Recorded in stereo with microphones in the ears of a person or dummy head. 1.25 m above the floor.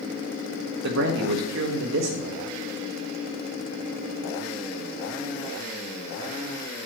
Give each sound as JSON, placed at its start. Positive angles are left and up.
{"t": 0.8, "sound": "a man speaking", "side_deg": -65, "distance_m": 1.6}